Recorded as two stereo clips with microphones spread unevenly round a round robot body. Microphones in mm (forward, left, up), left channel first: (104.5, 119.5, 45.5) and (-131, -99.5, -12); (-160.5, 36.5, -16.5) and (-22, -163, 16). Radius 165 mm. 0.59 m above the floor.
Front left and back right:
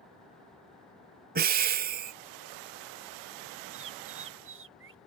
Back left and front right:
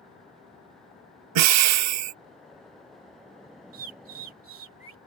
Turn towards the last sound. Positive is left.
turn(degrees=-85)